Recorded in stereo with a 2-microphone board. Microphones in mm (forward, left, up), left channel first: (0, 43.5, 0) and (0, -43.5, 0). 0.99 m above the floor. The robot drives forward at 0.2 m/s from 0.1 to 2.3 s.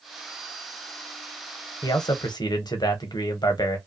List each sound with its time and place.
1.8 s a man speaking: 50° left (ahead or behind), 0.8 m; by 3.8 s 55° left (ahead or behind), 0.7 m